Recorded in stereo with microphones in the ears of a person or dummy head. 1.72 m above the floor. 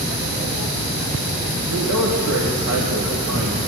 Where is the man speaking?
85° right, 2 m.